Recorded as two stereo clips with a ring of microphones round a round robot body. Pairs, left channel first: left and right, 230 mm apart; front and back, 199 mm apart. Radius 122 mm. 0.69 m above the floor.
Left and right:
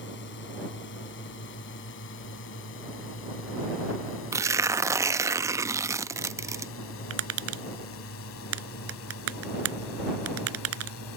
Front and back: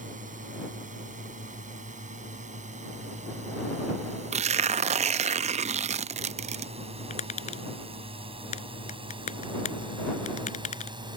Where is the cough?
I don't hear a cough.